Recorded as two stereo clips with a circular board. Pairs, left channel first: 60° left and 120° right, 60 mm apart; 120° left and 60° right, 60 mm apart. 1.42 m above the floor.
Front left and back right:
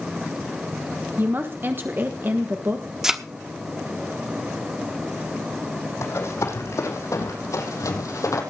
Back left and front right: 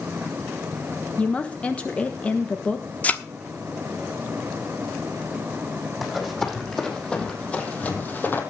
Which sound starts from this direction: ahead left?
Running footsteps, at 6.0 s.